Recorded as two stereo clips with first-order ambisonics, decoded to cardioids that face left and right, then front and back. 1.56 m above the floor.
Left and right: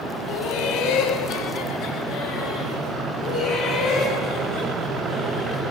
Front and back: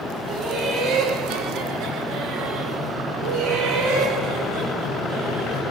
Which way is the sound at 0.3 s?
125° left.